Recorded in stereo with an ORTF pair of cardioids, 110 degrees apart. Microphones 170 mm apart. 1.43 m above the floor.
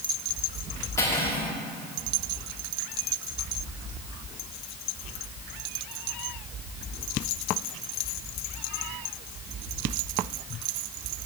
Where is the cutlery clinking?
15° left, 2.5 m.